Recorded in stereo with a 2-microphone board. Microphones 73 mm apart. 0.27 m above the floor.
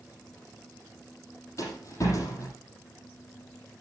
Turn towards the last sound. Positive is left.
turn(degrees=45)  # may be behind; listen again after turning